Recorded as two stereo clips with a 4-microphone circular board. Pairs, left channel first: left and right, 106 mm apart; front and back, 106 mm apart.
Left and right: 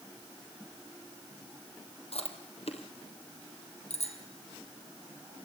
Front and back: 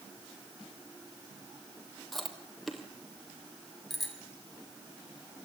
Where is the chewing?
90° left, 2.5 m.